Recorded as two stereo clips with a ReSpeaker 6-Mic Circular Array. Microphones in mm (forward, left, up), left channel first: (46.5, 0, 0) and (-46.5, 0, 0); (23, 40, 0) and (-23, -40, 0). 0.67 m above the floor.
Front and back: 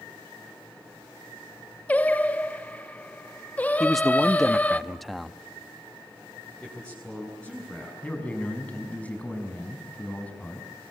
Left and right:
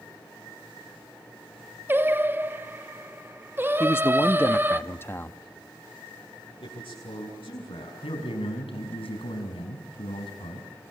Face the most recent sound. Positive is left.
turn(degrees=75)